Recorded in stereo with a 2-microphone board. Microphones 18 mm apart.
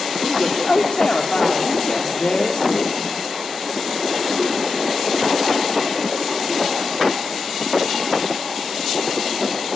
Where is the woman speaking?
60° left (ahead or behind), 2 m.